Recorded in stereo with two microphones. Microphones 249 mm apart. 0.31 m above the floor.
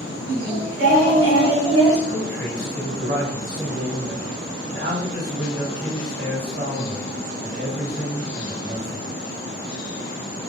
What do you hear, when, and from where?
0.3 s singing: 50° right (ahead or behind), 1.4 m
2.1 s a man speaking: 35° right (ahead or behind), 1.6 m